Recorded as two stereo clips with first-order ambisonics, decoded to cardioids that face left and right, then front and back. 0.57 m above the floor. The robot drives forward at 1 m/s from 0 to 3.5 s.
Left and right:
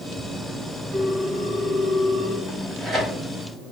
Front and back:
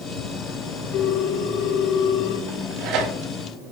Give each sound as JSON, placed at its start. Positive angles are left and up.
{"t": 0.9, "sound": "a ringtone", "azimuth_deg": -25, "distance_m": 5.5}
{"t": 2.5, "sound": "tearing paper", "azimuth_deg": -160, "distance_m": 3.5}